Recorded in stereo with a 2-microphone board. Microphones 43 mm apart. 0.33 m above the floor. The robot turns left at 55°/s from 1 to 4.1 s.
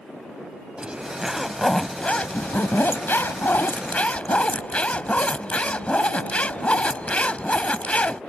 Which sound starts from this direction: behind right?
A zipper, at 0.8 s.